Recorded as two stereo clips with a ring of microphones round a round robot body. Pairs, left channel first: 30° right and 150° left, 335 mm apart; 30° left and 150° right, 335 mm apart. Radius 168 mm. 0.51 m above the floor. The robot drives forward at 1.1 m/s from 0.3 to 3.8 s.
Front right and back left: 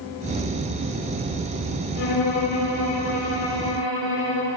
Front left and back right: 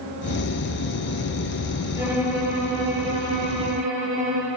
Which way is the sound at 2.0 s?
65° right.